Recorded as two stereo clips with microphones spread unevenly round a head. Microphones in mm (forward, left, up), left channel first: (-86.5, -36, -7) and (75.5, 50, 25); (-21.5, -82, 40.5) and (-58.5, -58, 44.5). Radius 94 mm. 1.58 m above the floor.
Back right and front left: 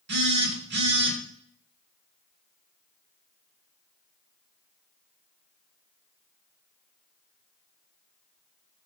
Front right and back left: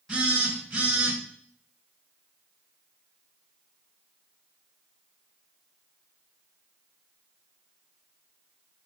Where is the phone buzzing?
60° left, 1.8 m.